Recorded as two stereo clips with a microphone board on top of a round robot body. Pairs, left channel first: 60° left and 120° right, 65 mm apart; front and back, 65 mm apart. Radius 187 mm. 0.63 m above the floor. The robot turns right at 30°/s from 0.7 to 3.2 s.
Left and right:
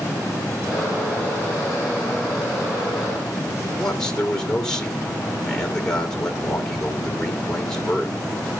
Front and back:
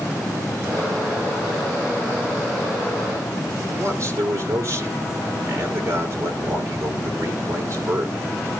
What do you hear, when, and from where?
3.8 s a man speaking: 140° left, 2.5 m